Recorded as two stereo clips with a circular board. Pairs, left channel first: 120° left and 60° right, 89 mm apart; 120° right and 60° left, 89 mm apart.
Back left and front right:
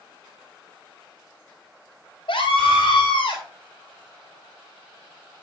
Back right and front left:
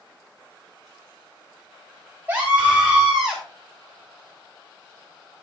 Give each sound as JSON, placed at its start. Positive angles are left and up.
{"t": 2.3, "sound": "a scream", "azimuth_deg": 135, "distance_m": 5.0}